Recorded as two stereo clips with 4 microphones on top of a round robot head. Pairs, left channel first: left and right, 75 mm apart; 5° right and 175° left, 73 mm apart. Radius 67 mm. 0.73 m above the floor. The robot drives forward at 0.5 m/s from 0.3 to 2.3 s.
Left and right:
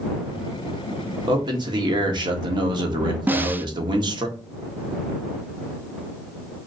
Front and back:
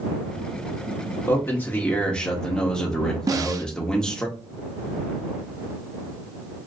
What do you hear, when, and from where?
1.3 s a man speaking: 65° right, 1.5 m; by 4.3 s 85° right, 1.4 m
3.3 s a snare drum: 150° right, 0.5 m